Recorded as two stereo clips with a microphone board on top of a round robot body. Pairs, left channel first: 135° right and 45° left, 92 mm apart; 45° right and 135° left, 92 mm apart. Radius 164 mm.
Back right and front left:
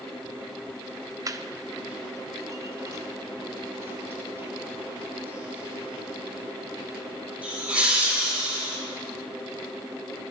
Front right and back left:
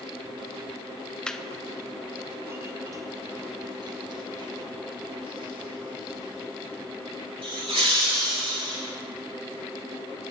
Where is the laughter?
30° left, 1.2 m; by 8.8 s 120° left, 4.5 m.